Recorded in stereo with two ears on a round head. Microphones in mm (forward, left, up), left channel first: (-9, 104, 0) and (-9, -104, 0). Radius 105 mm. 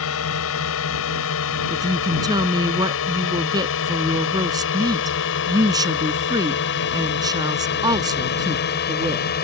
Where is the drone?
65° left (ahead or behind); by 9.4 s 45° left (ahead or behind).